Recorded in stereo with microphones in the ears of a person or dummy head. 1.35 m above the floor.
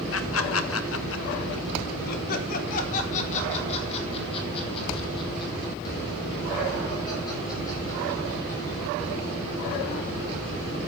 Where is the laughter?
75° left (ahead or behind), 1.4 m; by 9.0 s 20° left (ahead or behind), 6 m.